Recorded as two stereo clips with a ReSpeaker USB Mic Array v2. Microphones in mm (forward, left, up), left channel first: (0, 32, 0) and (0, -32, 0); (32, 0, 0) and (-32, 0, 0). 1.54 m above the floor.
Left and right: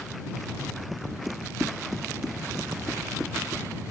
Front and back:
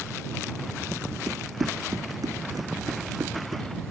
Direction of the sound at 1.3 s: 175° right.